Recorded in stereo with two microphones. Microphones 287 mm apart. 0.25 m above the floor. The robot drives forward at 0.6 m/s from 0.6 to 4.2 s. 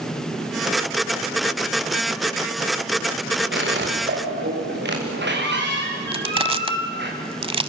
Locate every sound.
3.5 s a squeak: 40° right (ahead or behind), 5 m
6.1 s crushing: 20° right (ahead or behind), 0.9 m